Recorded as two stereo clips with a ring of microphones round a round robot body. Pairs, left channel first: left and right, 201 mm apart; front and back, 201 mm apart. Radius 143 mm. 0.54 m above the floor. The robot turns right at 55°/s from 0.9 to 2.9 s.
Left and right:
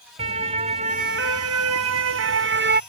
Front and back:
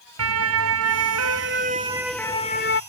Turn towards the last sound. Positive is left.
turn(degrees=-45)